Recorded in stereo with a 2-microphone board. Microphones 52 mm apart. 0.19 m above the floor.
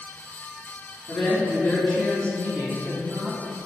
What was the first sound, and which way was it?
A woman speaking, 30° left (ahead or behind).